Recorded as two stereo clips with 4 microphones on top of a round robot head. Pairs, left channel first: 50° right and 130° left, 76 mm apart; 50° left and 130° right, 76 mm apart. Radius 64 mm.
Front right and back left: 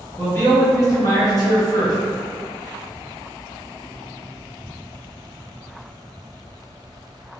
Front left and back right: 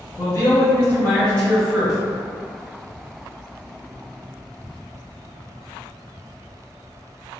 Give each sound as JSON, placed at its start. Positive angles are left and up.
{"t": 0.2, "sound": "a man speaking", "azimuth_deg": 10, "distance_m": 1.7}